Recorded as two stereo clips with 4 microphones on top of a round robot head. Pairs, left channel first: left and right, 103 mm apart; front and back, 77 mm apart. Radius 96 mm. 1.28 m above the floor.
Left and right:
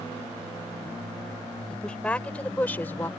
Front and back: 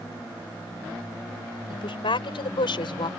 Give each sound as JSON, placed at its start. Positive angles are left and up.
{"t": 1.7, "sound": "a woman speaking", "azimuth_deg": 10}